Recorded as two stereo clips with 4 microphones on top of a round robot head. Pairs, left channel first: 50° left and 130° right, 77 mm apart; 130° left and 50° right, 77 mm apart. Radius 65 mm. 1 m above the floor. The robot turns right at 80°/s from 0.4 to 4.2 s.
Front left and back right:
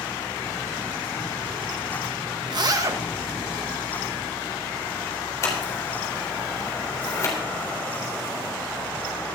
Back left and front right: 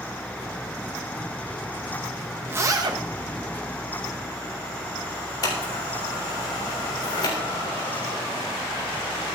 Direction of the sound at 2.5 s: 115° right.